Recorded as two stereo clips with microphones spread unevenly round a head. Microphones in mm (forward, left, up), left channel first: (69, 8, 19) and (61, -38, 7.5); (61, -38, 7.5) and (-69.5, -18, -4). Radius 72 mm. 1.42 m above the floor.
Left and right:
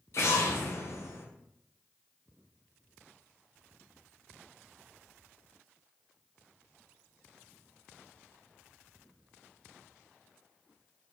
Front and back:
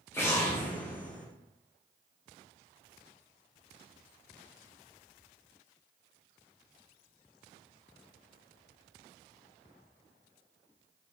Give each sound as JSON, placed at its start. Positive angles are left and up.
{"t": 0.1, "sound": "an explosion", "azimuth_deg": 65, "distance_m": 0.7}